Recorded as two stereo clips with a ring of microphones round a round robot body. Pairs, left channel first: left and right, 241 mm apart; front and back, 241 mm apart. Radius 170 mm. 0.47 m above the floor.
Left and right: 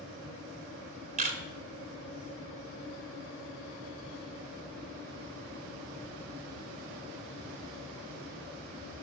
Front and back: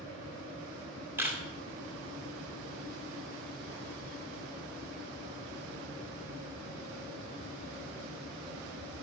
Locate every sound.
1.2 s a camera shutter: 105° right, 1.4 m